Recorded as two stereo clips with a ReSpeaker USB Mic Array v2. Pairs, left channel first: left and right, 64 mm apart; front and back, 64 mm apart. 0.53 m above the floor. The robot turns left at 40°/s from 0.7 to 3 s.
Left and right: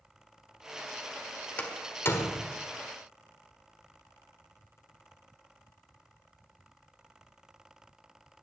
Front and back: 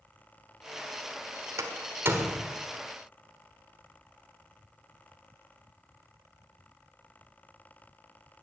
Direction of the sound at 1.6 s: 155° left.